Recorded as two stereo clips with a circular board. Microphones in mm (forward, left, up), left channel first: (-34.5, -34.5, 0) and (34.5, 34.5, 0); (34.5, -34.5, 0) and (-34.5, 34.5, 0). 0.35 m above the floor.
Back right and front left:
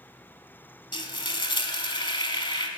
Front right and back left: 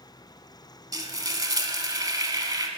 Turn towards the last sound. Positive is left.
turn(degrees=-175)